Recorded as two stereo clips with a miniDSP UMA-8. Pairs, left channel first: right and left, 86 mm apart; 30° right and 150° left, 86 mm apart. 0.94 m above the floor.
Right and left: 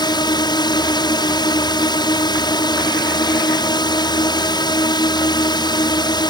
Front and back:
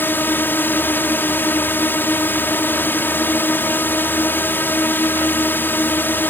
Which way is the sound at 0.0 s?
90° right.